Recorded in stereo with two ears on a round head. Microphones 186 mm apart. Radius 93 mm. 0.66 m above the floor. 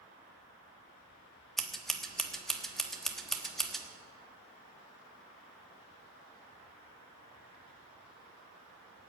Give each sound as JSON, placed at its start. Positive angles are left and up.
{"t": 1.6, "sound": "scissors", "side_deg": 0, "distance_m": 1.3}